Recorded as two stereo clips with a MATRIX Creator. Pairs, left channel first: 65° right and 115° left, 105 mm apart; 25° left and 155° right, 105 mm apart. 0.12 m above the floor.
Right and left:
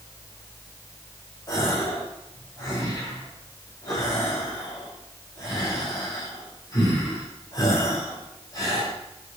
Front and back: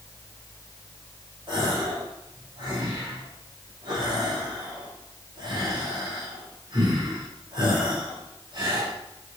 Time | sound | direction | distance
1.5 | a gasp | 120° right | 6 m